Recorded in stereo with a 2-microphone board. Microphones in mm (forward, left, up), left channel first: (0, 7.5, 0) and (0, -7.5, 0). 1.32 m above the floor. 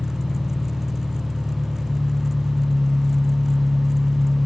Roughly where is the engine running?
Left.